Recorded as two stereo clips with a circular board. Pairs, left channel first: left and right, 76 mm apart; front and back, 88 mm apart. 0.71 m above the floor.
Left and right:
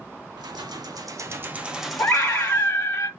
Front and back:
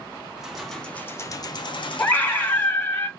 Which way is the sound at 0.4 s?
100° right.